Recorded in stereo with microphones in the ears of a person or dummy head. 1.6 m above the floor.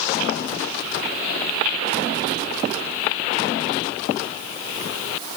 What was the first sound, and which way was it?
Only background noise.